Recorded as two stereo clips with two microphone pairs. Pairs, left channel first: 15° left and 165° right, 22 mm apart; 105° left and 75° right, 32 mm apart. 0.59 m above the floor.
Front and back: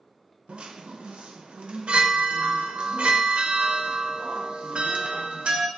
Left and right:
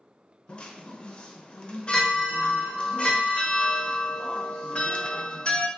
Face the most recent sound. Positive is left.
turn(degrees=165)